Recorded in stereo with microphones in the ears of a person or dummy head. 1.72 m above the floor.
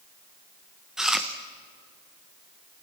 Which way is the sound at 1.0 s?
Centre (ahead or behind).